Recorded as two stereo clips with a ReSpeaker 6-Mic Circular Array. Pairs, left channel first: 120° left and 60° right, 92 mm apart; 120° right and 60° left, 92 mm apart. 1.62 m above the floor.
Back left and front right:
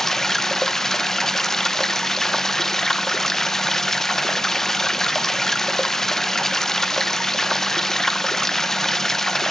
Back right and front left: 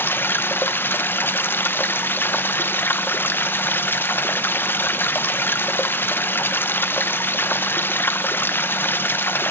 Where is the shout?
I don't hear a shout.